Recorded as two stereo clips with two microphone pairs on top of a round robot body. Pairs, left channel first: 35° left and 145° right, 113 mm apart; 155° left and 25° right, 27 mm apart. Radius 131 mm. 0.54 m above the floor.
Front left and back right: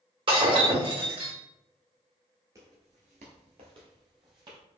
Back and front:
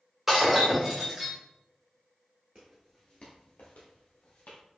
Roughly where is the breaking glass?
Right.